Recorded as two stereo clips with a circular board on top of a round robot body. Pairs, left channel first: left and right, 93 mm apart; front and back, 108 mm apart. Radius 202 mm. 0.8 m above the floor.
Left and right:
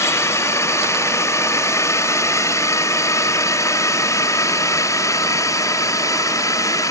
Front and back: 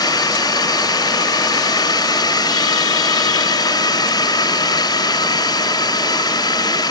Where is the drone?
40° left; by 6.9 s 45° left.